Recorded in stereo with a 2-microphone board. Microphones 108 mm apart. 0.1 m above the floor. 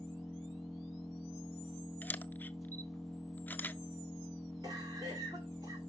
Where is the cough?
30° right (ahead or behind), 6.5 m.